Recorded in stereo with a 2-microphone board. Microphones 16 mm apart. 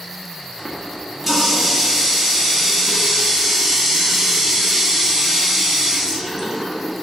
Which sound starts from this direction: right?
A running tap, at 0.6 s.